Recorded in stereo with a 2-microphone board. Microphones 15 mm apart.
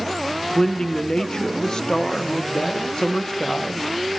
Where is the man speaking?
40° left (ahead or behind), 0.8 m.